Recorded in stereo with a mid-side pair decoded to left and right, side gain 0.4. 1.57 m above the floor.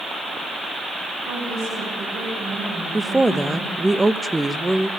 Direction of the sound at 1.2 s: 65° right.